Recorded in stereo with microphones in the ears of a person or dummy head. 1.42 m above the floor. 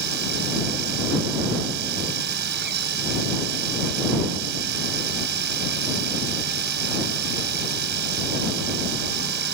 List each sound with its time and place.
0.0 s a machine running: 70° right (ahead or behind)